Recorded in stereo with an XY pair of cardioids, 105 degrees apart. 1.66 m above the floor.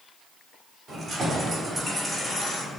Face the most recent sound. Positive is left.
turn(degrees=50)